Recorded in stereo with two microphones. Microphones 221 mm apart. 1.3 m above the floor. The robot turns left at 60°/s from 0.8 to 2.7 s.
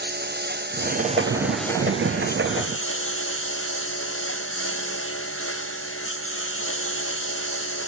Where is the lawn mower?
135° right; by 7.9 s 110° left.